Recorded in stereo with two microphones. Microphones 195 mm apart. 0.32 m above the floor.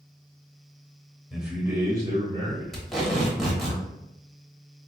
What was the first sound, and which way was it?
A man speaking, centre (ahead or behind).